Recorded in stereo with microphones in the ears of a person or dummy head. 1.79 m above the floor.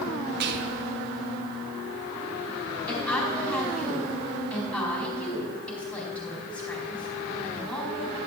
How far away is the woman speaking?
About 4 m.